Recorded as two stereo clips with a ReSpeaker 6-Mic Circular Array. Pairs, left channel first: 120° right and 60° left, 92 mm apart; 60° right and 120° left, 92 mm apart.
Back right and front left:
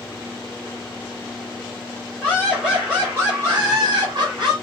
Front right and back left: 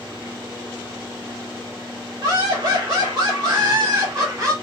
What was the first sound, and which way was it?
Laughter, 150° left.